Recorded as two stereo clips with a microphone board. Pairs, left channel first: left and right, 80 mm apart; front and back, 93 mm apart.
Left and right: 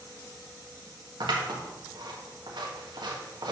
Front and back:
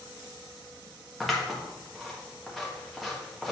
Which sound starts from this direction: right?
Scissors, at 1.2 s.